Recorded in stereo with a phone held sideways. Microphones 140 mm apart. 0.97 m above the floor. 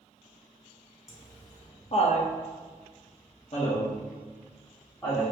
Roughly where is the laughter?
Left.